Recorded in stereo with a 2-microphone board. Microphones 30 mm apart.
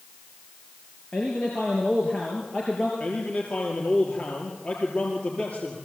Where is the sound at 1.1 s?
30° left (ahead or behind), 3.5 m.